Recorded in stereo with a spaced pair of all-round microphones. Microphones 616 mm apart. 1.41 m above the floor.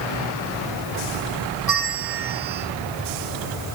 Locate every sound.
1.7 s a bell: 75° right (ahead or behind), 2 m